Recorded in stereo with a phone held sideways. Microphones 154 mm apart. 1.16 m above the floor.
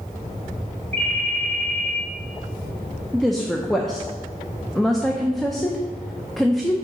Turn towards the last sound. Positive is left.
turn(degrees=0)  # may be behind; listen again after turning